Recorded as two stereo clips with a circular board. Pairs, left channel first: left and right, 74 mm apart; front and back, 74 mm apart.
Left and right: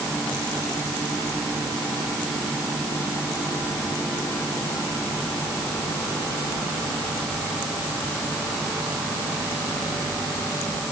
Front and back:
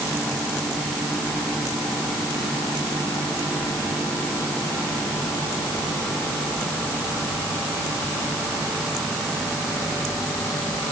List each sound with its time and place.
Only background noise.